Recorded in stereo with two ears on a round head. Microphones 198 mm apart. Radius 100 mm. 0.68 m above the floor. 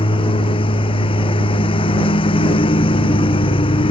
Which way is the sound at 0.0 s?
25° left (ahead or behind).